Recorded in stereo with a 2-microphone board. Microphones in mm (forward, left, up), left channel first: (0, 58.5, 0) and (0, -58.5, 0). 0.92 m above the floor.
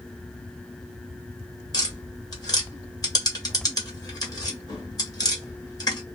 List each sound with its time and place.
1.7 s tapping: 30° left (ahead or behind), 1.1 m